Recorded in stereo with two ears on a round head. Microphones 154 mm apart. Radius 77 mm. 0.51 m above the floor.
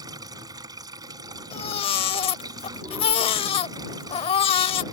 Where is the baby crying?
35° left (ahead or behind).